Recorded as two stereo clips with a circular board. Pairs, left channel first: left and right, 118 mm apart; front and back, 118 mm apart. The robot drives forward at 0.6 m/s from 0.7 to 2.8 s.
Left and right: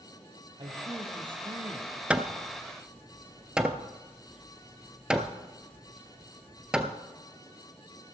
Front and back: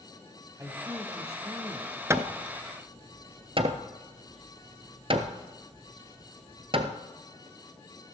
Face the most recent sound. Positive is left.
turn(degrees=-170)